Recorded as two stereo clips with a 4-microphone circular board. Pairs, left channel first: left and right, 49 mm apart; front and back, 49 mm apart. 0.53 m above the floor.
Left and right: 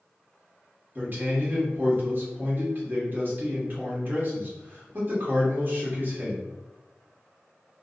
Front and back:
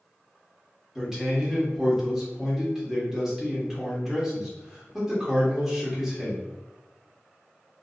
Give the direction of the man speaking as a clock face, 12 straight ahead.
3 o'clock.